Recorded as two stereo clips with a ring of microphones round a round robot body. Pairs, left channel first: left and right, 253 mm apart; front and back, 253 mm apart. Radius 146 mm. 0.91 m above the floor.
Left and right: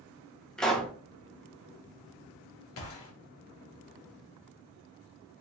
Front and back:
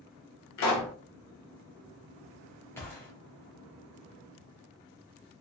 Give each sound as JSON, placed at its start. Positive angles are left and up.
{"t": 0.6, "sound": "a pop", "azimuth_deg": 5, "distance_m": 0.9}
{"t": 2.8, "sound": "a gunshot", "azimuth_deg": 80, "distance_m": 0.8}